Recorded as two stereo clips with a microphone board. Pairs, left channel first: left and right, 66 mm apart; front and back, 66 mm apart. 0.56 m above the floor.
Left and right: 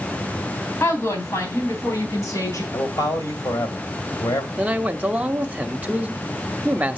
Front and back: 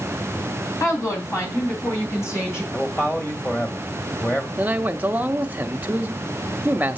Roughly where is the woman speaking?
Ahead left.